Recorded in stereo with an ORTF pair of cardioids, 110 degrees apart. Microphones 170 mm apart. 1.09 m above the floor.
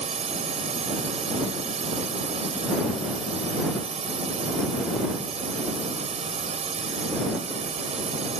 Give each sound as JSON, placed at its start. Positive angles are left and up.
{"t": 0.0, "sound": "a drone", "azimuth_deg": -40}